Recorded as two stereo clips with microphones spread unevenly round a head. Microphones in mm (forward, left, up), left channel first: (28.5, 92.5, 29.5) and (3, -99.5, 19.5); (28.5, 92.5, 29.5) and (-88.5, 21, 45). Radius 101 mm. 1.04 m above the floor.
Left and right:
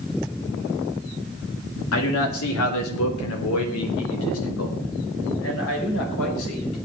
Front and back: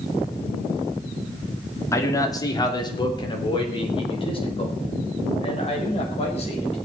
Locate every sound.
1.9 s a man speaking: 100° left, 2.5 m; by 6.8 s 75° left, 6.5 m